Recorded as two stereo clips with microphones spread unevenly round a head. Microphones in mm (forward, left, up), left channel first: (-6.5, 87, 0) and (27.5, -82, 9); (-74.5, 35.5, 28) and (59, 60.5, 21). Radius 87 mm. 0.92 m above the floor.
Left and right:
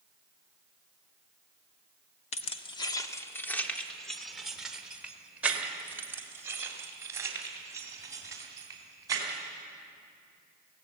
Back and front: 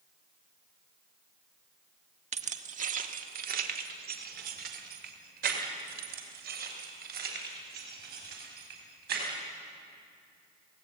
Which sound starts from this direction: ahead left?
Keys jangling, at 2.3 s.